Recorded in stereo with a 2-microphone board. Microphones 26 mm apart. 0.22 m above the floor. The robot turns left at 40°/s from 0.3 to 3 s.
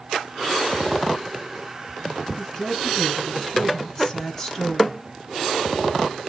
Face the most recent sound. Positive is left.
turn(degrees=20)  # may be behind; listen again after turning